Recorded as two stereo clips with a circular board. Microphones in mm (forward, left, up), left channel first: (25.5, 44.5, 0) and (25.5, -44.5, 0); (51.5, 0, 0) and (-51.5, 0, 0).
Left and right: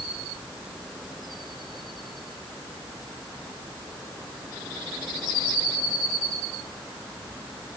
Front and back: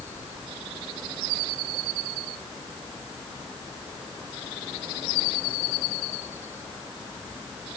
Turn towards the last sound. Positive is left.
No sound to turn to.